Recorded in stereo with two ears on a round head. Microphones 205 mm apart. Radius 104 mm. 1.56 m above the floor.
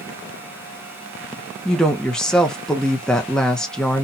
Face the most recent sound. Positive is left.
turn(degrees=5)  # may be behind; listen again after turning